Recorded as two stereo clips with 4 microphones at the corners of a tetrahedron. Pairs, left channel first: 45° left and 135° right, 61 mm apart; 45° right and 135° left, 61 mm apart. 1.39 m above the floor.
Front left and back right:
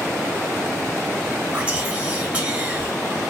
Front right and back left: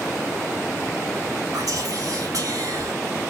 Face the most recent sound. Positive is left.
turn(degrees=155)